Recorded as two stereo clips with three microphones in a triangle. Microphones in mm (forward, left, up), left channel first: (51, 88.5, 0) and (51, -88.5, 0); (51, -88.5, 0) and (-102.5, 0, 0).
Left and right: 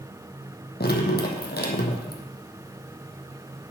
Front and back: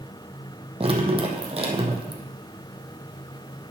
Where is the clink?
No clink in this recording.